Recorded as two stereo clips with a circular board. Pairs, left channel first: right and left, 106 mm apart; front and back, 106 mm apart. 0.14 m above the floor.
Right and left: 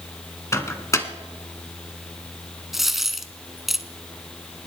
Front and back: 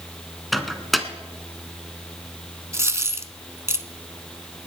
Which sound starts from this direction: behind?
A dropped coin, at 2.7 s.